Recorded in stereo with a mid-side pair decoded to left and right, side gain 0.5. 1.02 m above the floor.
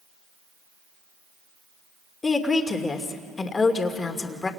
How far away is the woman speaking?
About 2.5 m.